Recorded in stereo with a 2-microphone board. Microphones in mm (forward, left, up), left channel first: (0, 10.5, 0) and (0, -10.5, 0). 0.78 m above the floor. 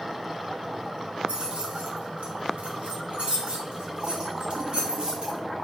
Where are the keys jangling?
55° right (ahead or behind), 1.4 m; by 5.4 s 45° right (ahead or behind), 2.5 m.